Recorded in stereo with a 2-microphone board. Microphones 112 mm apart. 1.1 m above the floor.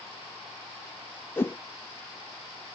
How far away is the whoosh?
About 0.6 m.